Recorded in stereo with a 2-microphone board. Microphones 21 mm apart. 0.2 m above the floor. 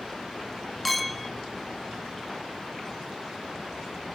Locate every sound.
0.8 s a clink: 5° left (ahead or behind), 0.7 m